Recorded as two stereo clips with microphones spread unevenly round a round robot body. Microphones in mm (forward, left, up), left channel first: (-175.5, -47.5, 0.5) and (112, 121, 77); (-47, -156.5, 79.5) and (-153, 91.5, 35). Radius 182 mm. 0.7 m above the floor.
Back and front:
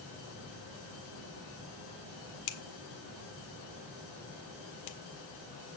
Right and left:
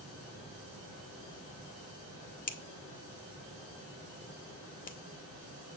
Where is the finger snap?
130° right, 1.3 m.